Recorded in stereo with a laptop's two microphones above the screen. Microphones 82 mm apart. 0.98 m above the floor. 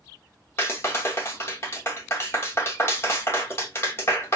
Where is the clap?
35° left (ahead or behind), 0.9 m.